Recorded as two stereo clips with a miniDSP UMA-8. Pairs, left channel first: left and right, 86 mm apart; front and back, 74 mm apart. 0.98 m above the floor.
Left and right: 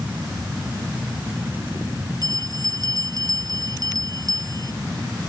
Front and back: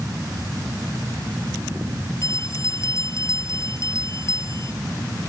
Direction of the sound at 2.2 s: 50° right.